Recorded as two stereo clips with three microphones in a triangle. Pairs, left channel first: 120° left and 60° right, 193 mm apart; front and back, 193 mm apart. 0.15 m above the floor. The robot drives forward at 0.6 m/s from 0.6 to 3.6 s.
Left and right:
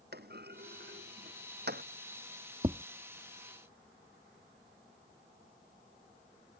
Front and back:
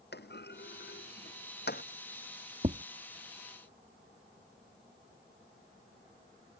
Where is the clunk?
30° right.